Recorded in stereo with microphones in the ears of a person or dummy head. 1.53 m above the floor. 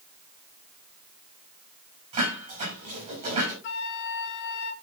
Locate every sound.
2.1 s dishes clattering: 40° right (ahead or behind), 8.5 m
3.6 s a flute: 60° left (ahead or behind), 0.9 m